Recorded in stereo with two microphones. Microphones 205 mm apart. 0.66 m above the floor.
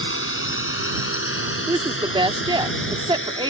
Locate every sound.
0.0 s a drone: 80° left; by 3.5 s 70° left (ahead or behind)
1.7 s a woman speaking: 25° right (ahead or behind)